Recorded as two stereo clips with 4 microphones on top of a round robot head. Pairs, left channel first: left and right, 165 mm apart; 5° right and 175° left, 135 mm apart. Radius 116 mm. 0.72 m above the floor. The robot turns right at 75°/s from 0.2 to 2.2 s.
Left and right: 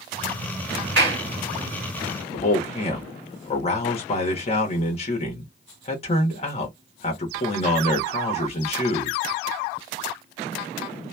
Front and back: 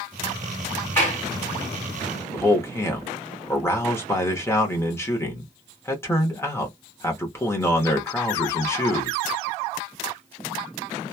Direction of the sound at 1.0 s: 85° right.